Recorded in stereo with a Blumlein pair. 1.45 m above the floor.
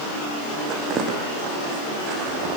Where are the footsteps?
30° right, 5 m; by 2.6 s 40° right, 6 m.